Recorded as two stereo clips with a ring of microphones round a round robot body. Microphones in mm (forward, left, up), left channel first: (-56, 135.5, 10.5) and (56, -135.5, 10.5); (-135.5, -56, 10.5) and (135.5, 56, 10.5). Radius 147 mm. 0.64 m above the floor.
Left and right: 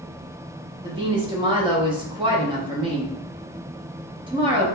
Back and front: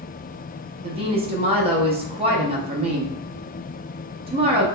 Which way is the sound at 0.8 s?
20° right.